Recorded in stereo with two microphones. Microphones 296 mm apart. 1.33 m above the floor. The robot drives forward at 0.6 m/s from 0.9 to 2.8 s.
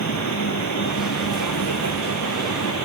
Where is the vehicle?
65° left (ahead or behind).